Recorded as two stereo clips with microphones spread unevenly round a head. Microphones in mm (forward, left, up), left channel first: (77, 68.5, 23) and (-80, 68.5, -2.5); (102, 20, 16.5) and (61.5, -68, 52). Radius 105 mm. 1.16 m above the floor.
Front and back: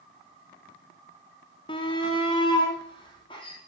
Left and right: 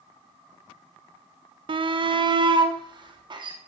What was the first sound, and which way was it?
A shout, 70° right.